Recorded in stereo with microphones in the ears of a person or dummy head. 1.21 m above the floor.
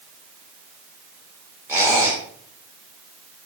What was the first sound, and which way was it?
A squeak, 15° right (ahead or behind).